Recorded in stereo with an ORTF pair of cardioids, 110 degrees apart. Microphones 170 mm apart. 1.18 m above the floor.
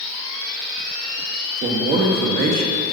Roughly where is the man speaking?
Ahead right.